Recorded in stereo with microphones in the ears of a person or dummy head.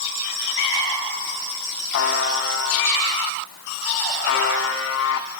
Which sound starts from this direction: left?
A buzzer, at 1.9 s.